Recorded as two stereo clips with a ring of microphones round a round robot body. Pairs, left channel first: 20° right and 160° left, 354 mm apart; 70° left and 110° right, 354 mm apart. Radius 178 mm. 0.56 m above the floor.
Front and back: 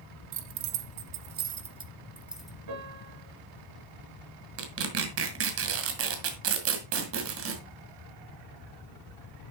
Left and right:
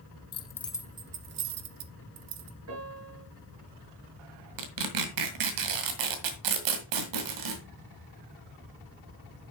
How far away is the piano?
About 5.5 m.